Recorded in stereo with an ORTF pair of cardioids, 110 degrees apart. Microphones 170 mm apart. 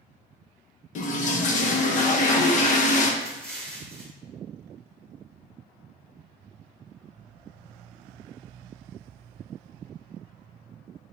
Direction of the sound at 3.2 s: 5° left.